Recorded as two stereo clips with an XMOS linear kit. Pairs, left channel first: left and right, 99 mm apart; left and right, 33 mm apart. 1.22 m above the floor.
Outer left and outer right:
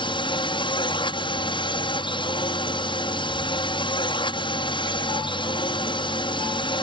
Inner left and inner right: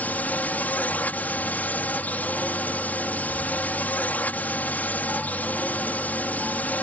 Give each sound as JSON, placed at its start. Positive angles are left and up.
{"t": 0.0, "sound": "a drone", "side_deg": 50}